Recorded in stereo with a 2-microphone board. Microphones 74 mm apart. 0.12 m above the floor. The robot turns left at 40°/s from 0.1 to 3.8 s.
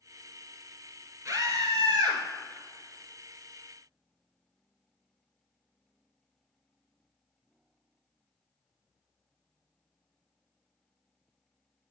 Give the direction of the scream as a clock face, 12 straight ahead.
2 o'clock.